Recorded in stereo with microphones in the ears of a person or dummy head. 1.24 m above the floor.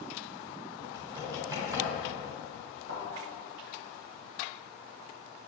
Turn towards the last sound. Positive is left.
turn(degrees=-65)  # may be behind; listen again after turning